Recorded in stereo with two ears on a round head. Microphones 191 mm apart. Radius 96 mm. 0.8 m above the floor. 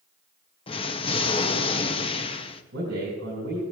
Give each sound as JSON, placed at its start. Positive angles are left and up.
{"t": 0.7, "sound": "an explosion", "side_deg": 25, "distance_m": 0.7}
{"t": 2.7, "sound": "a man speaking", "side_deg": -55, "distance_m": 5.5}